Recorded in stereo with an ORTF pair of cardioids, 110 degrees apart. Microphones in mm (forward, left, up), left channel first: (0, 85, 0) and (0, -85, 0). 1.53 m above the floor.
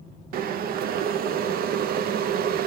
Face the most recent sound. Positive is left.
turn(degrees=-65)